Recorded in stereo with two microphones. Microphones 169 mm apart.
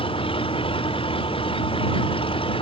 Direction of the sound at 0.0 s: 30° left (ahead or behind).